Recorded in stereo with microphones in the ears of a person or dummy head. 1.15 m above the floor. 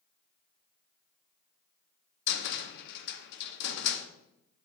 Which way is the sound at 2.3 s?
55° left (ahead or behind).